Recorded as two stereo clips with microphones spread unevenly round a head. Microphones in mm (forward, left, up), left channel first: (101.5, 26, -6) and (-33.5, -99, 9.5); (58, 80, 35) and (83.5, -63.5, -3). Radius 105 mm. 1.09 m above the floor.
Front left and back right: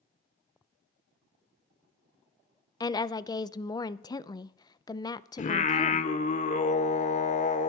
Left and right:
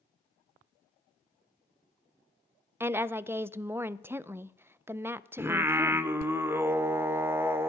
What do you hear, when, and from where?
2.8 s a woman speaking: 20° right, 0.6 m
5.4 s singing: 5° left, 0.9 m